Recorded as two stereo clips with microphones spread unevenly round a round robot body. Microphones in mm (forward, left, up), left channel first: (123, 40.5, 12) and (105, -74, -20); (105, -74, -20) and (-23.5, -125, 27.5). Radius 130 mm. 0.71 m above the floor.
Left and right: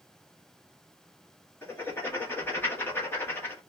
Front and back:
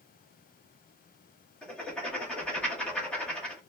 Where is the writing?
Straight ahead, 1.2 m.